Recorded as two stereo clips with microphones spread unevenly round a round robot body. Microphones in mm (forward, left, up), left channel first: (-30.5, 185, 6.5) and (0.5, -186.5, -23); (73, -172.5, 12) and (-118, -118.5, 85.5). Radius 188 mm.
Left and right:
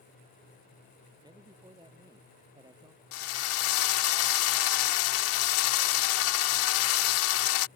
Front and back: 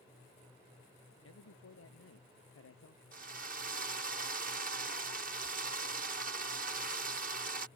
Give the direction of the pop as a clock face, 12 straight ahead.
No pop in this recording.